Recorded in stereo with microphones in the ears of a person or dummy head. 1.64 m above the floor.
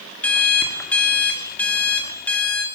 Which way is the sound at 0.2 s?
5° left (ahead or behind).